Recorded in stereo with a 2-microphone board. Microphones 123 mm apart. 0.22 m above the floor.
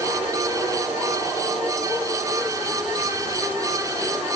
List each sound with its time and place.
Only background noise.